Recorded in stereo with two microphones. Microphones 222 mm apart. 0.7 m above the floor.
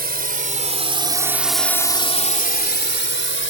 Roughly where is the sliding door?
I don't hear a sliding door.